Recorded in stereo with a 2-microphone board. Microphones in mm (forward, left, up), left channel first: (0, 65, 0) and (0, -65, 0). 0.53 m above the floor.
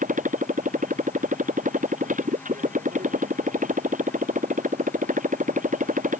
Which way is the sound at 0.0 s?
80° right.